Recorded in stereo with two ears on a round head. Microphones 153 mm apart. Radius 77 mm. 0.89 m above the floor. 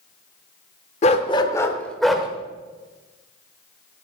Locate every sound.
1.0 s a dog barking: 40° left (ahead or behind), 0.9 m; by 2.3 s 5° right (ahead or behind), 1.2 m